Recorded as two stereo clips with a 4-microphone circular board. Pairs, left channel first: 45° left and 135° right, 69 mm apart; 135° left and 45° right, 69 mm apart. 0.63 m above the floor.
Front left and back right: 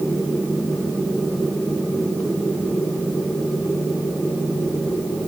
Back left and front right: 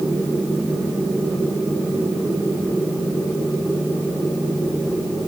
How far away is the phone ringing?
No phone ringing in this recording.